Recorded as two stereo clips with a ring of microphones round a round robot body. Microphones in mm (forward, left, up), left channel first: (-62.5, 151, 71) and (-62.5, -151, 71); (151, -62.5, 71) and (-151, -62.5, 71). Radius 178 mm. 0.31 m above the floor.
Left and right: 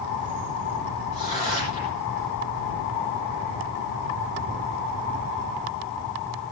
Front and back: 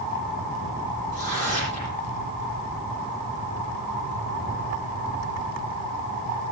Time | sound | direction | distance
1.1 | tearing paper | 20° left | 8.5 m